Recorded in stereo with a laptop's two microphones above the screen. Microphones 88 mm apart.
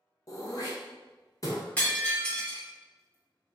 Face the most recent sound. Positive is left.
turn(degrees=20)  # may be behind; listen again after turning